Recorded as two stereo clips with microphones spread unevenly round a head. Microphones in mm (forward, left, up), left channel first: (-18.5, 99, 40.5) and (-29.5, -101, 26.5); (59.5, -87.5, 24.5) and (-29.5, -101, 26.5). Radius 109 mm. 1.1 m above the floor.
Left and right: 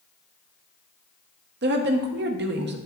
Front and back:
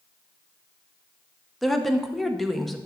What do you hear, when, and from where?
1.6 s a woman speaking: 80° right, 1.0 m